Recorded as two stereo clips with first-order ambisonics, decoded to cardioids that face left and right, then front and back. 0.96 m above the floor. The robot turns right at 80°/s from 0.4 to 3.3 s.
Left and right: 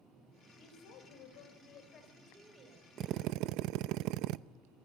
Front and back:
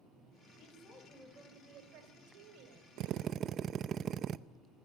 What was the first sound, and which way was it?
A woman speaking, 40° left.